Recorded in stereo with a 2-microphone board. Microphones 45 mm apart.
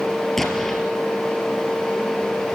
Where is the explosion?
10° left (ahead or behind), 3 m.